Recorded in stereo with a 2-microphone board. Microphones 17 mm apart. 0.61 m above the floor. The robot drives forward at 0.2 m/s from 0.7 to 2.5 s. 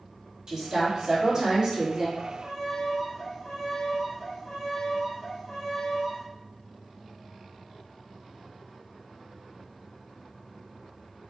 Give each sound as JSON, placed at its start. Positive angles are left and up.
{"t": 0.5, "sound": "a woman speaking", "side_deg": -40, "distance_m": 1.5}
{"t": 2.2, "sound": "a violin", "side_deg": 25, "distance_m": 1.5}